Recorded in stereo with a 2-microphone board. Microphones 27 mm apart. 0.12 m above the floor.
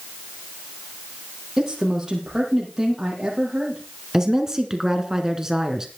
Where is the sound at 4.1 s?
20° right (ahead or behind), 1.8 m.